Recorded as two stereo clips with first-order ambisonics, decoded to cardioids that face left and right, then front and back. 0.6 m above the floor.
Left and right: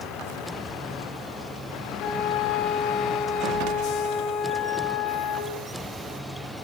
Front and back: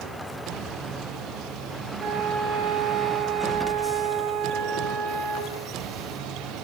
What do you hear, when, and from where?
2.0 s a flute: 135° left, 4 m